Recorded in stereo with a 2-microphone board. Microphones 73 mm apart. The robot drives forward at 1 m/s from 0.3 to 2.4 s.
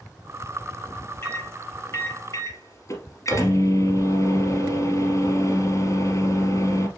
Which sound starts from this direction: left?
A microwave, at 1.2 s.